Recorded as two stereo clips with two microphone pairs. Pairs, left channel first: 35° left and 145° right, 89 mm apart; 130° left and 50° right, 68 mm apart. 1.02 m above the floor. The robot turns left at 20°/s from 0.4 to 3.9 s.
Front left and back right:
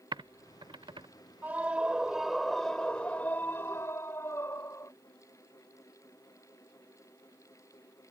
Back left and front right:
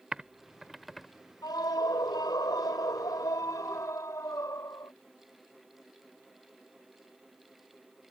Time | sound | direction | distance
0.1 | typing on a keyboard | 130° right | ?
1.4 | a scream | 140° left | ?